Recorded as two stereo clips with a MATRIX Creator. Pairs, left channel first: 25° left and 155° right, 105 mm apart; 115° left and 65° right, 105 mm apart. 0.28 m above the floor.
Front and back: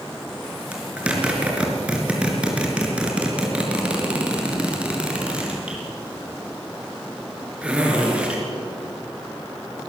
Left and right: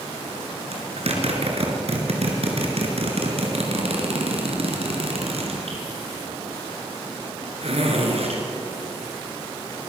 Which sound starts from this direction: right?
A zipper, at 0.7 s.